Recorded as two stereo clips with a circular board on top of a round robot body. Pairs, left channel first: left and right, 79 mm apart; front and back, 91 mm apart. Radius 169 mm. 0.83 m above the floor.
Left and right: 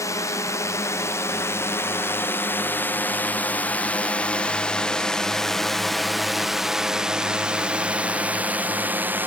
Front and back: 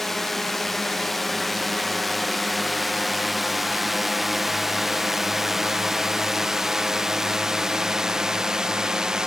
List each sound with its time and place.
0.0 s a drone: 85° left; by 9.3 s 110° right